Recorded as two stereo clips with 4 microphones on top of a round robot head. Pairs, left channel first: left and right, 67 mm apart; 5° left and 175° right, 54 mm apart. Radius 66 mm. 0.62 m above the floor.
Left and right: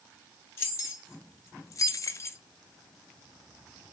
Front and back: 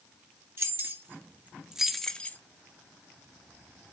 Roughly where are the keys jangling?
Behind left.